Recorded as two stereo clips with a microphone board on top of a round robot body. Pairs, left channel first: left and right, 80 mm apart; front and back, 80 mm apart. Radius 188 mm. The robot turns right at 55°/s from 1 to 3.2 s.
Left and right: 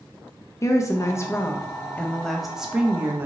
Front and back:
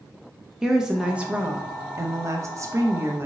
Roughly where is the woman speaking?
Left.